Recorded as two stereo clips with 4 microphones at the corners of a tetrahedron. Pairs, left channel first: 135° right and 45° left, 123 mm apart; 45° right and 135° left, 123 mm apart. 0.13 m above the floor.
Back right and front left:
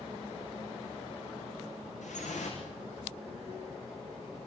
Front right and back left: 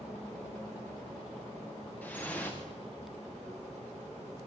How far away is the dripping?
About 5.5 m.